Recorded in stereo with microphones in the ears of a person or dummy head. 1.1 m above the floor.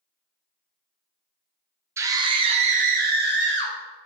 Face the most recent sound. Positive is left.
turn(degrees=-60)  # may be behind; listen again after turning